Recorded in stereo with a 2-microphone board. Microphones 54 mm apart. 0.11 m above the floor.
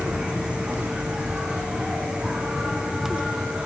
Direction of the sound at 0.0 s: 15° right (ahead or behind).